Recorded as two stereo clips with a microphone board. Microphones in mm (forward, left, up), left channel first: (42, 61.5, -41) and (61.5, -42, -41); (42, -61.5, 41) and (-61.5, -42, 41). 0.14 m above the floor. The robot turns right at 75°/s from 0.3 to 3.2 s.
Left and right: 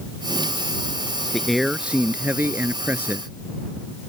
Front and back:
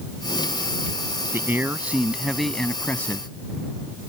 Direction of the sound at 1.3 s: Straight behind.